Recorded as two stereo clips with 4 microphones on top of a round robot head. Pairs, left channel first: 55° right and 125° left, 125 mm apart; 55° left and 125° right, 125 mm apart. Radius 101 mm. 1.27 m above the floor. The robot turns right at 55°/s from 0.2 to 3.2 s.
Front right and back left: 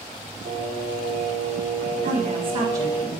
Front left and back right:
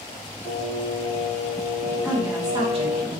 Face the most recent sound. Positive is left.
turn(degrees=-145)